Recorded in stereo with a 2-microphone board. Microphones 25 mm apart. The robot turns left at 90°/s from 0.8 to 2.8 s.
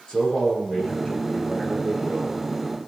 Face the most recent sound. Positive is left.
turn(degrees=-145)